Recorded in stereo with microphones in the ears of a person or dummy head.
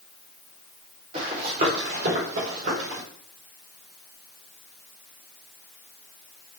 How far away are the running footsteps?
About 4 m.